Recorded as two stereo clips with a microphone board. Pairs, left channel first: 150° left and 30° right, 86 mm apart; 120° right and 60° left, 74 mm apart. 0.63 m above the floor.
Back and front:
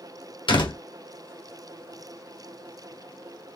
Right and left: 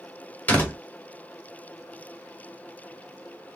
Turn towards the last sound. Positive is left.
turn(degrees=170)